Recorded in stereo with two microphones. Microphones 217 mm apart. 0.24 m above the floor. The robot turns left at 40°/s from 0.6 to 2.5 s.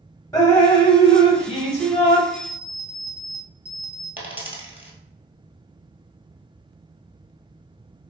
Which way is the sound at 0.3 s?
150° left.